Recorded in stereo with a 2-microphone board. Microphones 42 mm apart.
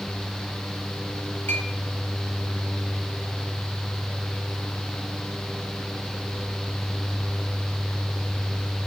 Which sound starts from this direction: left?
A clink, at 1.5 s.